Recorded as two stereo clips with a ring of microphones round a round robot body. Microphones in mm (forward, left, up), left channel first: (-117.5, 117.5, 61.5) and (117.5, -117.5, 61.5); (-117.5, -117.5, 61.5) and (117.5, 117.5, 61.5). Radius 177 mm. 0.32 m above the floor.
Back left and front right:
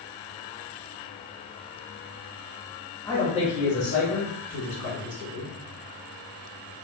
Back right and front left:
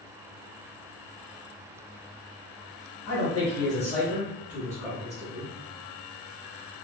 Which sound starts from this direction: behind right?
A man speaking, at 3.0 s.